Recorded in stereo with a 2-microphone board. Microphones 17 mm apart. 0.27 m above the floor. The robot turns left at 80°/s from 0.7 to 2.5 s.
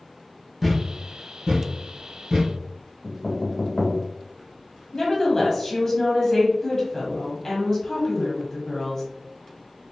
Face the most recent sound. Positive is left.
turn(degrees=20)  # may be behind; listen again after turning